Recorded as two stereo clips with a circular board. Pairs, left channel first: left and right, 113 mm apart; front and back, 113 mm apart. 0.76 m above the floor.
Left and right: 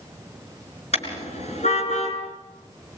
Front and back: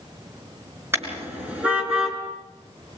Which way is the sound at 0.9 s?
110° left.